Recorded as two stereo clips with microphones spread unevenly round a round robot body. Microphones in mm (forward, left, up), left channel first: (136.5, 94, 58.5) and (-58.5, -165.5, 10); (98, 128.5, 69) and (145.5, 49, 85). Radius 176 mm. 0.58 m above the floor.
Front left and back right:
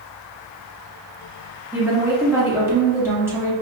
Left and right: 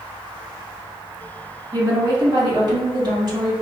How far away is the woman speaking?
About 1.4 m.